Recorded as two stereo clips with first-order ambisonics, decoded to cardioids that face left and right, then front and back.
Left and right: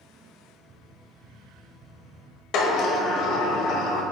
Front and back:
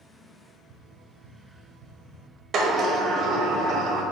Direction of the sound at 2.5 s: 125° left.